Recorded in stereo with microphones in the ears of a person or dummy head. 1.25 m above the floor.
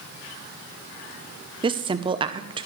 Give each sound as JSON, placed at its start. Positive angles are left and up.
{"t": 1.6, "sound": "a woman speaking", "side_deg": -20, "distance_m": 0.7}